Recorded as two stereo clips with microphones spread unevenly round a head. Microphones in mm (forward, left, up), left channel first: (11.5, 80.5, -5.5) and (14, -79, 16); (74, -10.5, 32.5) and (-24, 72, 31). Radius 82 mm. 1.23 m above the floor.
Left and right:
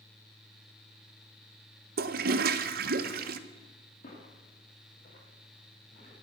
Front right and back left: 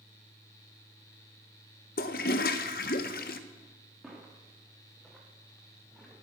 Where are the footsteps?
50° left, 6 m; by 6.1 s 45° left, 7.5 m.